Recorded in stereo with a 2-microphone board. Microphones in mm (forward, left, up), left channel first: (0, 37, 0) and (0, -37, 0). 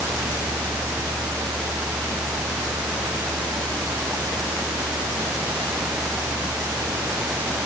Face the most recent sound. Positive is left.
No sound to turn to.